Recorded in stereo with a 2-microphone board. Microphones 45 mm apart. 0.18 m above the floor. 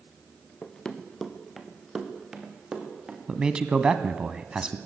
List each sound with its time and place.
0.6 s running footsteps: 20° left (ahead or behind), 2.0 m; by 3.2 s 15° right (ahead or behind), 4.5 m
3.3 s a man speaking: 15° right (ahead or behind), 1.2 m